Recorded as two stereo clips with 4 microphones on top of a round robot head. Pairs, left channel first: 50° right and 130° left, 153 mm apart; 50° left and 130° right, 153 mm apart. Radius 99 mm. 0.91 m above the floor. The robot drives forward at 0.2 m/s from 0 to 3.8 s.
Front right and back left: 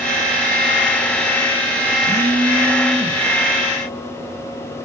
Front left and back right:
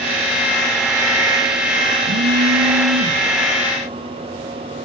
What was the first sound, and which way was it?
A phone buzzing, 130° right.